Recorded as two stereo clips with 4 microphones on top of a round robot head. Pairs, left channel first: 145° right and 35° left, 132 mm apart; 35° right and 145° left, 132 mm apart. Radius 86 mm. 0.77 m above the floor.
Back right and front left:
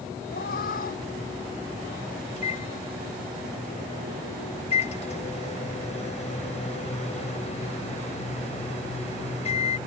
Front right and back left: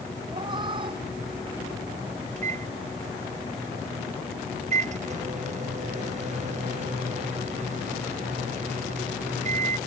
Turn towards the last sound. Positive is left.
turn(degrees=175)